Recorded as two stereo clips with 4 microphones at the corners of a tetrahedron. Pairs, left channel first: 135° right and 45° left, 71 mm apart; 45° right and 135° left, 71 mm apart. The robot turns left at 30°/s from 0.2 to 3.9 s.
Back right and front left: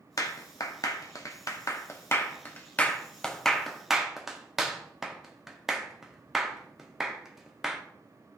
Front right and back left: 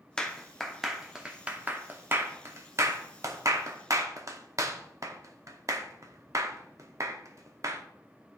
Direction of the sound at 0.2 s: 120° right.